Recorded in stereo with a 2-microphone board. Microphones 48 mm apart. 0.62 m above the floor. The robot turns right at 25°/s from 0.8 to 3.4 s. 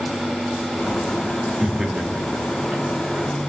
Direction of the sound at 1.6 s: 15° right (ahead or behind).